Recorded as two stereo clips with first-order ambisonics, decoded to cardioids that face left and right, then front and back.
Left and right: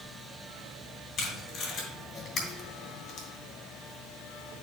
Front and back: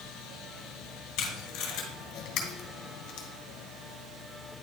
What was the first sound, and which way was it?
Tape being pulled, 30° left.